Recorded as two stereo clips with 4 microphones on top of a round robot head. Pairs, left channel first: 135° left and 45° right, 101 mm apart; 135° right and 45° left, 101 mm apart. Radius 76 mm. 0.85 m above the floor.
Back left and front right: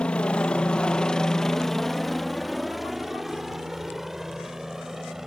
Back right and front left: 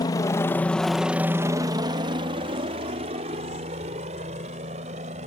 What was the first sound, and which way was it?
A helicopter, 150° right.